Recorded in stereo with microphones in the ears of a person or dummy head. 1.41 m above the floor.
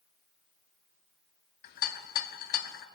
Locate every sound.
1.6 s a rattle: 50° left (ahead or behind), 0.6 m